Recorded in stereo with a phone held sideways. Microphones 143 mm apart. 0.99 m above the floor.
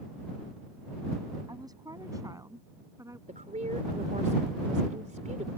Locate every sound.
1.5 s a woman speaking: 25° right (ahead or behind); by 3.2 s 20° right (ahead or behind)
3.3 s a woman speaking: 65° right (ahead or behind)